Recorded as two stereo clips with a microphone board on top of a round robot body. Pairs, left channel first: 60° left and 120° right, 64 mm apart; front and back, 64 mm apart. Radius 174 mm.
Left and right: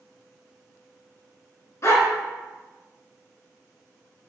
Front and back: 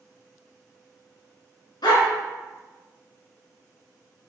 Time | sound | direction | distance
1.8 | a dog barking | 10° left | 1.8 m